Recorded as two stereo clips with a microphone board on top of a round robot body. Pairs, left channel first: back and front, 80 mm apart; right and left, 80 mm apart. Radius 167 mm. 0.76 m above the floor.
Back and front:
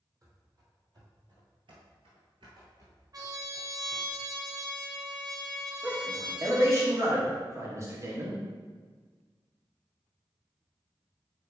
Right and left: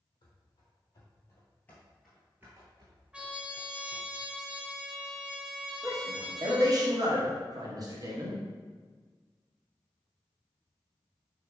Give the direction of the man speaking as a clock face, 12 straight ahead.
10 o'clock.